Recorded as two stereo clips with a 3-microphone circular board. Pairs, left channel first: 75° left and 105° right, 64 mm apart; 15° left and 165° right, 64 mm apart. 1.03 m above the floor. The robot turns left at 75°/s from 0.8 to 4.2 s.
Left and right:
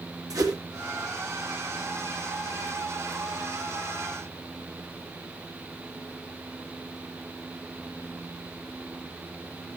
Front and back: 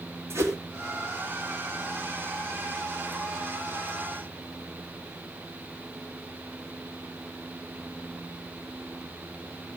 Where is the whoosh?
120° right, 2.5 m.